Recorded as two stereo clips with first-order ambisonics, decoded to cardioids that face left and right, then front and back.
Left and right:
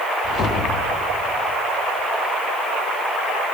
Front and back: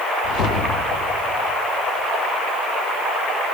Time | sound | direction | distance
0.2 | a whoosh | 35° left | 1.0 m